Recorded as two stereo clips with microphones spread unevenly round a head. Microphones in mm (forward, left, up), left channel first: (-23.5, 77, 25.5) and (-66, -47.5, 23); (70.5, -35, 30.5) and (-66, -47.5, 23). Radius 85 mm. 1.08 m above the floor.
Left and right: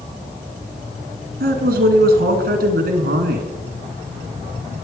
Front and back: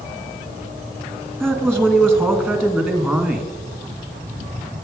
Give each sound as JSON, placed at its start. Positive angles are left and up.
{"t": 1.4, "sound": "a man speaking", "azimuth_deg": -80, "distance_m": 1.8}